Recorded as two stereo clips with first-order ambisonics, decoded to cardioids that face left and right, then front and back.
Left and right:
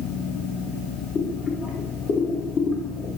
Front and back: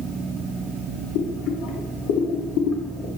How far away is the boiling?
About 0.9 m.